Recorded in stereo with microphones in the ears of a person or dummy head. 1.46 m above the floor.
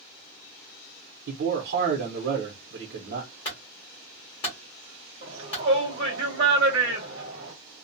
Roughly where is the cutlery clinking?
No cutlery clinking in this recording.